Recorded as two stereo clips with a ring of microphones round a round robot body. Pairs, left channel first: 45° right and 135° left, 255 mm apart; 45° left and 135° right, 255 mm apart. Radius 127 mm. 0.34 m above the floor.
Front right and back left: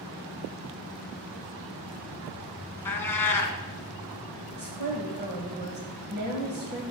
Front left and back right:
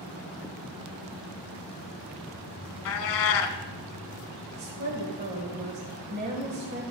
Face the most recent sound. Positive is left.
turn(degrees=180)